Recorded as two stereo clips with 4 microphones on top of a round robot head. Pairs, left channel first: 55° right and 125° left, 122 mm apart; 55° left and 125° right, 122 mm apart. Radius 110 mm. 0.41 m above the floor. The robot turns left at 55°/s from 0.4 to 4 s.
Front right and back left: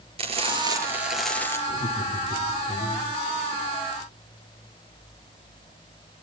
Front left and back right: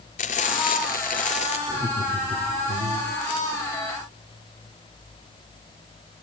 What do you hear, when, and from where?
0.2 s frying: 80° left, 5 m; by 1.6 s 15° left, 5 m
1.7 s laughter: 45° right, 2 m; by 3.1 s 125° right, 2 m